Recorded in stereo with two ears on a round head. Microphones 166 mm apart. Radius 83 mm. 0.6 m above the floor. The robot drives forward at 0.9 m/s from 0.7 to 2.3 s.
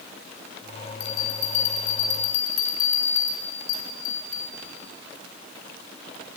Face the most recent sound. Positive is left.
turn(degrees=85)